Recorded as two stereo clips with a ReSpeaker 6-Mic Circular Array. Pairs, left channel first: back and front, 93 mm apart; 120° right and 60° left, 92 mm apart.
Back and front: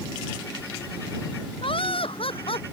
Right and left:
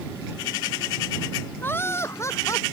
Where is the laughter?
175° left; by 2.6 s 175° right.